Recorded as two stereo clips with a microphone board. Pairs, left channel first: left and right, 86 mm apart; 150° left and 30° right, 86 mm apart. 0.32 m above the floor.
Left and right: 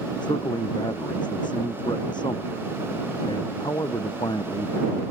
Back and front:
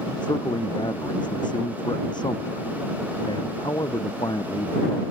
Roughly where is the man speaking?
Behind left.